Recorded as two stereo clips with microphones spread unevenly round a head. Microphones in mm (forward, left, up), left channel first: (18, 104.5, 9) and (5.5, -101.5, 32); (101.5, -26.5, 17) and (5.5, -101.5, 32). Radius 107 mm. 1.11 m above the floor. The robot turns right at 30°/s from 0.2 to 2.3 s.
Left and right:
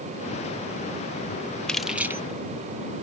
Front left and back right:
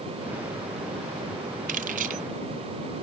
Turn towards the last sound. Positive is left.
turn(degrees=-165)